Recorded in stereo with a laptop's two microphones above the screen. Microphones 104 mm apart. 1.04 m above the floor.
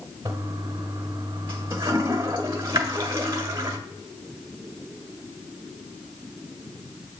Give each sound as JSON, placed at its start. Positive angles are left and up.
{"t": 0.2, "sound": "a toilet flushing", "side_deg": -55, "distance_m": 1.5}